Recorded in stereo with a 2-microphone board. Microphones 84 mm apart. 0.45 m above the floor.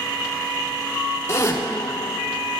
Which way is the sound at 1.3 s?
35° left (ahead or behind).